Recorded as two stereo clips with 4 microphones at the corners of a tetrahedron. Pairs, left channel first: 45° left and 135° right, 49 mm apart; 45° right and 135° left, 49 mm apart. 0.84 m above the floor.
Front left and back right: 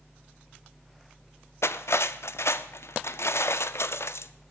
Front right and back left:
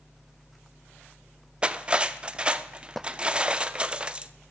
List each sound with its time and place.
1.6 s cutlery clinking: 65° left, 0.6 m